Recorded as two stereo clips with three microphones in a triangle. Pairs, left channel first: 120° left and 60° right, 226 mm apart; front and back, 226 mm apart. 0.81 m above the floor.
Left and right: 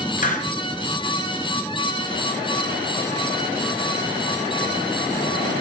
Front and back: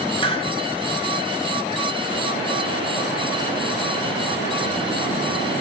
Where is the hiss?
65° left, 1.7 m.